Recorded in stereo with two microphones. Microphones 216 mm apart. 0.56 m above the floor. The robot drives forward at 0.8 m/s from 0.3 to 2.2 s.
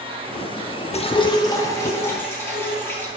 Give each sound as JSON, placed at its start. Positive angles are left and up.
{"t": 0.9, "sound": "dripping", "side_deg": 30, "distance_m": 0.6}